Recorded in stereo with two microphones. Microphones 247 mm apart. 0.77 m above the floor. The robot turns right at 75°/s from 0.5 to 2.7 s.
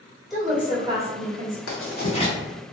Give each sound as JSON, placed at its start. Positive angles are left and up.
{"t": 0.3, "sound": "a woman speaking", "azimuth_deg": 180, "distance_m": 1.8}
{"t": 1.7, "sound": "writing", "side_deg": 60, "distance_m": 0.9}